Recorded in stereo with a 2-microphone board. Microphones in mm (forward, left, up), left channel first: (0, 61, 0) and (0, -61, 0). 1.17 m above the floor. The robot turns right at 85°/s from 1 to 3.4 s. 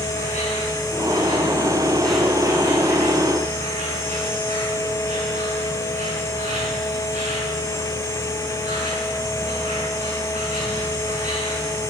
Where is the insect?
85° left, 6 m; by 11.9 s 75° right, 6 m.